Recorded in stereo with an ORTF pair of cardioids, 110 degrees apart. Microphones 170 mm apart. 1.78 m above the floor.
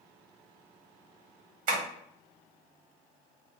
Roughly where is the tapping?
Ahead right.